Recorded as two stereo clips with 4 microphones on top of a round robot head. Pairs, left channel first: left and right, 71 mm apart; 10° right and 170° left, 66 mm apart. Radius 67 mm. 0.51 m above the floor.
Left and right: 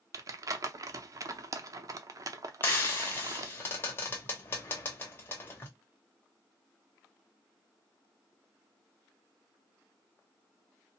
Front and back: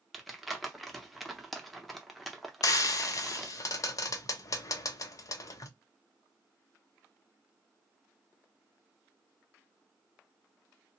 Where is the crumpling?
100° right, 0.6 m.